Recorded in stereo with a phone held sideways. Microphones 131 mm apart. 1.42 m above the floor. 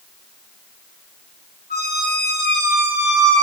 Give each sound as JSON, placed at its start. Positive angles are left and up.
{"t": 1.7, "sound": "a squeak", "side_deg": -65, "distance_m": 0.9}